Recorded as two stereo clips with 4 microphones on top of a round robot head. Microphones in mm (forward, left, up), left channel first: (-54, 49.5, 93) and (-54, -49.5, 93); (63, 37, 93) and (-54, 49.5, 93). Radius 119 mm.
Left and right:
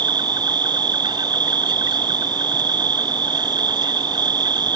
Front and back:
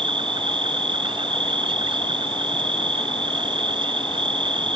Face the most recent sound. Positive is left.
turn(degrees=-135)